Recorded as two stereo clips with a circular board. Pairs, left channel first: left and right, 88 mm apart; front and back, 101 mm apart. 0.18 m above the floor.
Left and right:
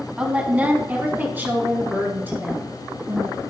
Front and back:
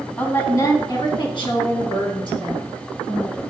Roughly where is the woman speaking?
Ahead right.